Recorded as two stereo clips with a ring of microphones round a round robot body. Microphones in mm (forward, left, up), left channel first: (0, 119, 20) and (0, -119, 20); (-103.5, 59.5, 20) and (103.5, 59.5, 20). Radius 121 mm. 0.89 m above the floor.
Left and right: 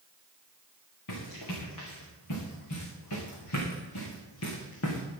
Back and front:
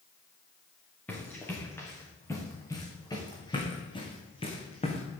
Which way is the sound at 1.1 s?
95° left.